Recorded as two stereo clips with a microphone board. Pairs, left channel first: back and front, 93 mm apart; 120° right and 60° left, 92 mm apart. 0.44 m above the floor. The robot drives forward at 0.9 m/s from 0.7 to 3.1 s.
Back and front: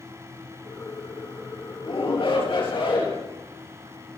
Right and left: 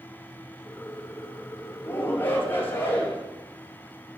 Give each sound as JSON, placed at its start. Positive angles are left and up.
{"t": 1.8, "sound": "a shout", "azimuth_deg": 175, "distance_m": 7.5}